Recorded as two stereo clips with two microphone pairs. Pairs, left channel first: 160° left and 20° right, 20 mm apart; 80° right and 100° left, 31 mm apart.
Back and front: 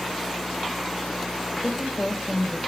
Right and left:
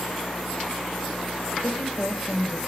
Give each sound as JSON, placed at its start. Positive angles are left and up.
{"t": 1.6, "sound": "a woman speaking", "azimuth_deg": -85, "distance_m": 3.0}